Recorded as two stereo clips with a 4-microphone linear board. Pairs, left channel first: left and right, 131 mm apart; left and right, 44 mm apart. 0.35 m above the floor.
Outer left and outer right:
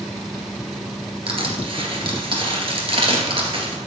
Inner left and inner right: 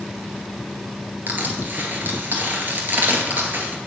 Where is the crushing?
45° right (ahead or behind), 1.9 m.